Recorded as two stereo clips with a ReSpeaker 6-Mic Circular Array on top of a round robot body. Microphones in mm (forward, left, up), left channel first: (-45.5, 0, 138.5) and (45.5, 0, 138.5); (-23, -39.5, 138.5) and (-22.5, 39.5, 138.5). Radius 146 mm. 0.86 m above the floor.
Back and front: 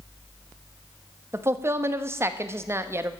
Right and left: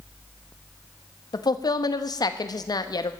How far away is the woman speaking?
About 1.1 m.